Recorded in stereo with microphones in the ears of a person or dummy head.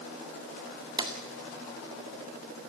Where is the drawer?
25° right (ahead or behind), 1.9 m.